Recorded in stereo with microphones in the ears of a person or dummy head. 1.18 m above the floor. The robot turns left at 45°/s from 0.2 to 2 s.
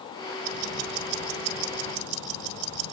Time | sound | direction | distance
0.4 | ticking | 50° right | 9.5 m